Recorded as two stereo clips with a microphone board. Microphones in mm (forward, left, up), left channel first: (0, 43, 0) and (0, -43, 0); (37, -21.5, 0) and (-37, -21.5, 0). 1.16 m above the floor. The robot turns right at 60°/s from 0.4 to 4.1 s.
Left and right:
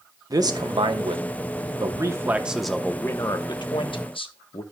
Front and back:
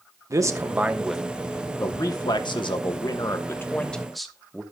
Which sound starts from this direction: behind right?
A man speaking, at 0.3 s.